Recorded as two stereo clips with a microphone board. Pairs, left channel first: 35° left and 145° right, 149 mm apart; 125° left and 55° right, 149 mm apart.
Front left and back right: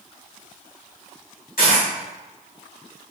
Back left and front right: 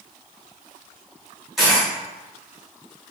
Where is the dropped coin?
35° left, 1.8 m.